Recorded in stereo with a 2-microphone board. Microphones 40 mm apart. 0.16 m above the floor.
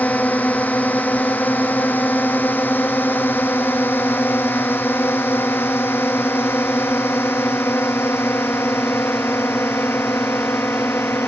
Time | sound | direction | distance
0.0 | a drone | 45° left (ahead or behind) | ?